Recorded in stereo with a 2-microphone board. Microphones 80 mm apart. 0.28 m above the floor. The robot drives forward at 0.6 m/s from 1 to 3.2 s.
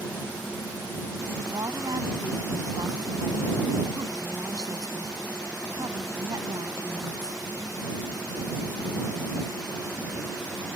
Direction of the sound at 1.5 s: 60° right (ahead or behind).